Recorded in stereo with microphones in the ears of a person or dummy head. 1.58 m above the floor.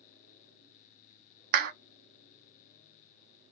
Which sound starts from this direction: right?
A clap, at 1.5 s.